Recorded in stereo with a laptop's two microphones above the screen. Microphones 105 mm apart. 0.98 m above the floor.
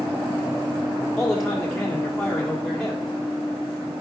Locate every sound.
1.2 s a man speaking: 5° left (ahead or behind), 2 m